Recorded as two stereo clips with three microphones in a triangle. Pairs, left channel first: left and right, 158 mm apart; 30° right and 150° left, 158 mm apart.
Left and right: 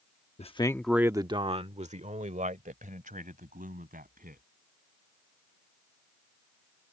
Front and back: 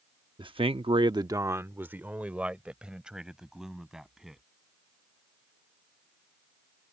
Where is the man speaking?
105° left; by 4.4 s 125° right.